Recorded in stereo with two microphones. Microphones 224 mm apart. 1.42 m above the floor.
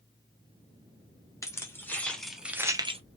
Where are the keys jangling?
15° left (ahead or behind), 1.2 m; by 3.0 s 25° right (ahead or behind), 0.5 m.